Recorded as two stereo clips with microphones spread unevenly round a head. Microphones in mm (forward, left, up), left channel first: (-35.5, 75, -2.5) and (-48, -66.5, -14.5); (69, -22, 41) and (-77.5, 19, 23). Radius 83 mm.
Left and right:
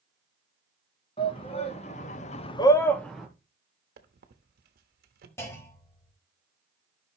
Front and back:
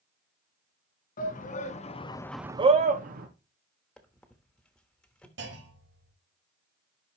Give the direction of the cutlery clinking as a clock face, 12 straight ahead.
I don't hear cutlery clinking.